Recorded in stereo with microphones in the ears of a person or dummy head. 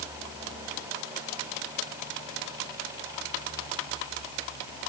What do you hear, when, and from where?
Only background noise.